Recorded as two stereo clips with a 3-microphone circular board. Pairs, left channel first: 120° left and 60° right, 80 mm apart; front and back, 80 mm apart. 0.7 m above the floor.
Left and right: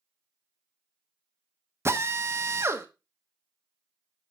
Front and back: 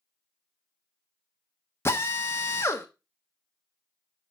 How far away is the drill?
About 1.1 m.